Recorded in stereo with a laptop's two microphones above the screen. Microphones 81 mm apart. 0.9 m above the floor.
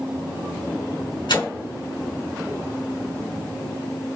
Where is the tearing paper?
70° left (ahead or behind), 3 m.